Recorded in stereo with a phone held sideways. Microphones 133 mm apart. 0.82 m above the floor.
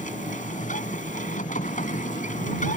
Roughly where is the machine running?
Left.